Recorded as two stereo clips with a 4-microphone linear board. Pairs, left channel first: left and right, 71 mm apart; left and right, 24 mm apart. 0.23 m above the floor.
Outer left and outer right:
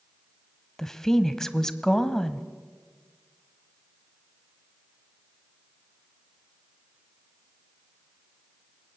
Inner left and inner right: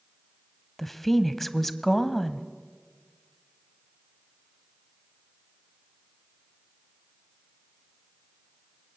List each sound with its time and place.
0.8 s a woman speaking: 5° left (ahead or behind), 1.1 m